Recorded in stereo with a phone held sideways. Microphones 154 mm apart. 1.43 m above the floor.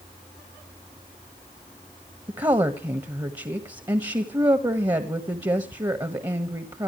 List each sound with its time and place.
2.3 s a woman speaking: 25° right (ahead or behind), 1.6 m